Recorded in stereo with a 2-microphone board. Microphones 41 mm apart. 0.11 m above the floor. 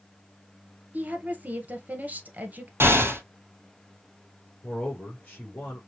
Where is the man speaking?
40° left (ahead or behind), 3 m.